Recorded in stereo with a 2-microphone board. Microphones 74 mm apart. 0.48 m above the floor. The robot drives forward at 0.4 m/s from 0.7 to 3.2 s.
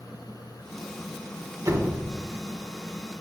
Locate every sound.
1.6 s a door slam: 45° right (ahead or behind), 1.2 m; by 2.1 s 50° right (ahead or behind), 1.2 m